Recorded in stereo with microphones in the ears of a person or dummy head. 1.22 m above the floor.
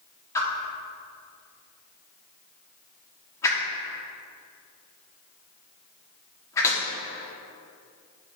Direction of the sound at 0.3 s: 15° left (ahead or behind).